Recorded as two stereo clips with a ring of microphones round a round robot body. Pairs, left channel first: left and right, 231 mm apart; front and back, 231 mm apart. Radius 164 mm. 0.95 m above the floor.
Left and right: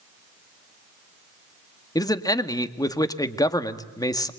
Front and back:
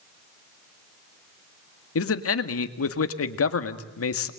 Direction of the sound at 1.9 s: 15° left.